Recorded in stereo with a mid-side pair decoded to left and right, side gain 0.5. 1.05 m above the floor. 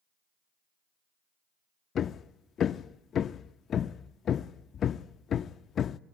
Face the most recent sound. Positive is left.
turn(degrees=50)